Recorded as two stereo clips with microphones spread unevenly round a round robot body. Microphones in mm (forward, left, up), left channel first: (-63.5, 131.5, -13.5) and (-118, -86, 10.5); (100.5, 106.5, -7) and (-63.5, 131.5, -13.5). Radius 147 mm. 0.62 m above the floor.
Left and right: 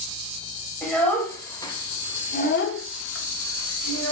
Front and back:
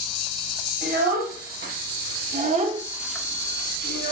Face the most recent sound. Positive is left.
turn(degrees=35)